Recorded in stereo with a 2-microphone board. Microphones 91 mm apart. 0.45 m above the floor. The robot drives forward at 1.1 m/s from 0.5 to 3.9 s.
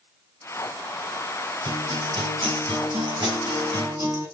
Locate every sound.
1.6 s a guitar: 75° right (ahead or behind), 3 m; by 4.2 s 45° right (ahead or behind), 4 m